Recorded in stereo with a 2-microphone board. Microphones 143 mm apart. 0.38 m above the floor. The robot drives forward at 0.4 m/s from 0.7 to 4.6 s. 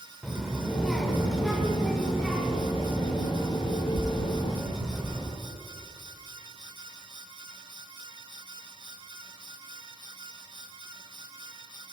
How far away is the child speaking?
About 1.0 m.